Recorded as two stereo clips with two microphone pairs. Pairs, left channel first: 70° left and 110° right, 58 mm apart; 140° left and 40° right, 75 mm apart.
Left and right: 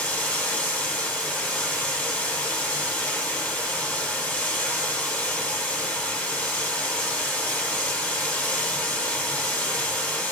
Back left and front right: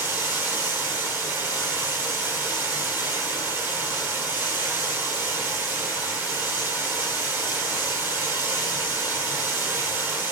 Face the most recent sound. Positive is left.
turn(degrees=10)